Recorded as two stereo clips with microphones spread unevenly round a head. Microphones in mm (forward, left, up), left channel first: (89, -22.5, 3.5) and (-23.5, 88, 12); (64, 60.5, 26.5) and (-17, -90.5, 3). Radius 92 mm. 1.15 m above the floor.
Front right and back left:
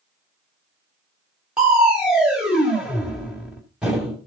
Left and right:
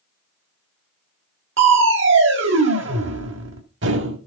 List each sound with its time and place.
1.6 s crushing: 140° right, 1.7 m